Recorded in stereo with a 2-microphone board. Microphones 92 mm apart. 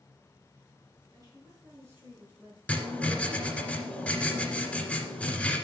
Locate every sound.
1.1 s a woman speaking: 35° right (ahead or behind), 5 m; by 2.6 s 15° right (ahead or behind), 5 m
2.7 s writing: 10° left (ahead or behind), 2.0 m